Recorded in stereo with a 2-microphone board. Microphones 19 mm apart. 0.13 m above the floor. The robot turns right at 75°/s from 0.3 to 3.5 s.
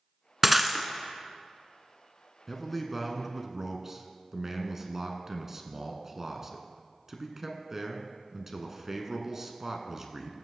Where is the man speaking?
15° left (ahead or behind), 1.2 m; by 10.3 s 20° right (ahead or behind), 1.2 m.